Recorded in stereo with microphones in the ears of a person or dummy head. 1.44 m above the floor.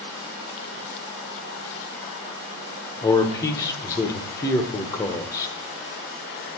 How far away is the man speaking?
About 0.8 m.